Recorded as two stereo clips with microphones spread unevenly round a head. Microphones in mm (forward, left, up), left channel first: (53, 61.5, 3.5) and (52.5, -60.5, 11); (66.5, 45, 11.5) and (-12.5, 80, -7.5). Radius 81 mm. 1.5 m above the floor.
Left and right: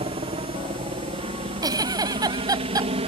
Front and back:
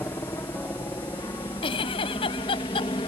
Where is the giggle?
35° right.